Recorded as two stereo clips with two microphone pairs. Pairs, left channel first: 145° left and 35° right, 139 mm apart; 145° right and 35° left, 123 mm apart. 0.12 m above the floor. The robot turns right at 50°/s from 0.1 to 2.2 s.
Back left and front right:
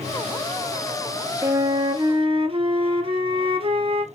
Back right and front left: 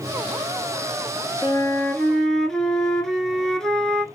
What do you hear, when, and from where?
1.4 s a flute: 100° right, 0.6 m; by 4.0 s 65° right, 0.6 m